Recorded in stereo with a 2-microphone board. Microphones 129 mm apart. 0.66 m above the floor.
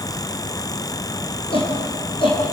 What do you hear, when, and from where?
1.5 s a shout: 40° left (ahead or behind), 9 m